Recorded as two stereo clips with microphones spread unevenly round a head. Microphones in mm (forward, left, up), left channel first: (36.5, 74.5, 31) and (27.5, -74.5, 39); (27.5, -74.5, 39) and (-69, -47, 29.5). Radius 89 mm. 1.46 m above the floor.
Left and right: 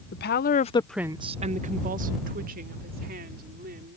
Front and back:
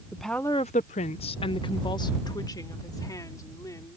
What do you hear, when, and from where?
0.1 s a woman speaking: 75° left; by 4.0 s 70° right